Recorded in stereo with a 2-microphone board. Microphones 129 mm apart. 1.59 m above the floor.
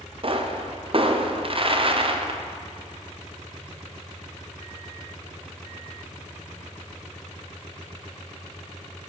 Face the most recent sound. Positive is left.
turn(degrees=-45)  # may be behind; listen again after turning